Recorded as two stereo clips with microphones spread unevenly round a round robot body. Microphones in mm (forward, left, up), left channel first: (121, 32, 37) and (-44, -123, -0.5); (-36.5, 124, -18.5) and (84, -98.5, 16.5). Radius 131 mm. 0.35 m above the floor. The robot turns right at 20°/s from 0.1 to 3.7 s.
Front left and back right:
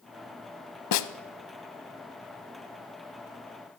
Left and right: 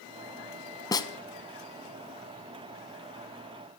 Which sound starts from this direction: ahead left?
A snare drum, at 0.9 s.